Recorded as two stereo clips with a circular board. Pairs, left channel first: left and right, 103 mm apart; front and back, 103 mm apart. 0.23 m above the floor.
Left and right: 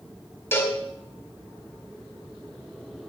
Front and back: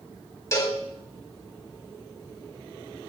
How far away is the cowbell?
About 1.8 m.